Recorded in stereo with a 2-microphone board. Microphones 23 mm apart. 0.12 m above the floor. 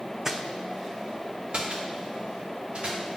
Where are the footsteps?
20° right (ahead or behind), 0.5 m; by 3.2 s 60° right (ahead or behind), 2.5 m.